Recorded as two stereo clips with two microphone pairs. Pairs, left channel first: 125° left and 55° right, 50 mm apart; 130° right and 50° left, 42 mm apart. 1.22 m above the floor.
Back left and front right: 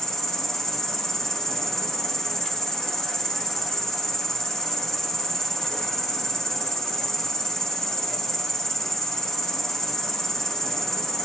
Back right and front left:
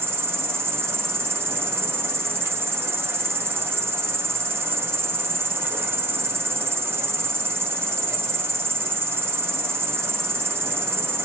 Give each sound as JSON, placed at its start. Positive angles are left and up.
{"t": 0.0, "sound": "an insect", "azimuth_deg": 45, "distance_m": 0.7}